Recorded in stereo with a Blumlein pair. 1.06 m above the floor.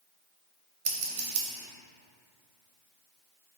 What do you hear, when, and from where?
0.8 s scissors: 45° right, 0.6 m